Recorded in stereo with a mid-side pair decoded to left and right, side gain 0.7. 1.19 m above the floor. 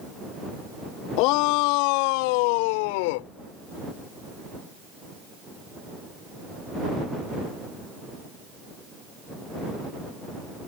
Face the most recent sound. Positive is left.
turn(degrees=80)